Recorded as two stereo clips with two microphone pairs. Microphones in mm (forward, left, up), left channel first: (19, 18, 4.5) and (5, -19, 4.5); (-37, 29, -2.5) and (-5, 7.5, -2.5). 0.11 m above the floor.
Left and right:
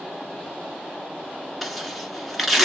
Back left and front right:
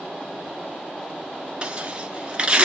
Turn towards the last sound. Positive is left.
turn(degrees=-25)